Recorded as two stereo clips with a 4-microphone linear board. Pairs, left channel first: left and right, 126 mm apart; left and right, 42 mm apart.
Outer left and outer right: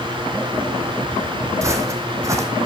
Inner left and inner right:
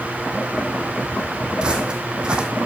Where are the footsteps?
25° right (ahead or behind), 1.8 m.